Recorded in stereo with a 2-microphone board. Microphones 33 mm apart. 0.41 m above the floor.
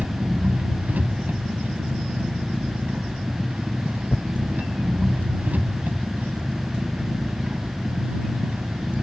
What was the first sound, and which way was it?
An engine running, 60° right (ahead or behind).